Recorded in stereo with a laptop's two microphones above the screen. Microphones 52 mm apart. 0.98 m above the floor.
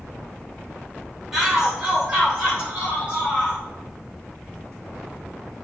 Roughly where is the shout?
Centre.